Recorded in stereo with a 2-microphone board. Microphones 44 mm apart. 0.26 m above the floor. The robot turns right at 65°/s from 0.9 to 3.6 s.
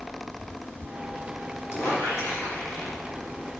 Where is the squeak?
60° left, 3.5 m; by 3.0 s 145° left, 3.5 m.